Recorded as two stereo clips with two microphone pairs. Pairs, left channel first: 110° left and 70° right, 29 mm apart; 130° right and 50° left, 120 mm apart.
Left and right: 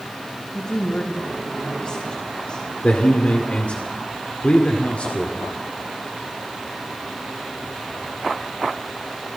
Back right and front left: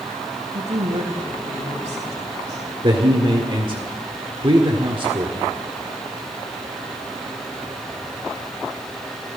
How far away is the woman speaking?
About 3.5 m.